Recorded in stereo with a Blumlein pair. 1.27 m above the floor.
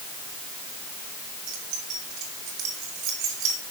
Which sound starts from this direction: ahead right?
Keys jangling, at 1.5 s.